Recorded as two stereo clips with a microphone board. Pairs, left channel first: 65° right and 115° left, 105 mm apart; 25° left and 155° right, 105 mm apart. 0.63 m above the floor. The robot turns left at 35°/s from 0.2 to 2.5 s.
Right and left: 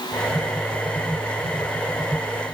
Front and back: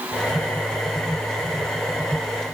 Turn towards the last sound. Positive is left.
No sound to turn to.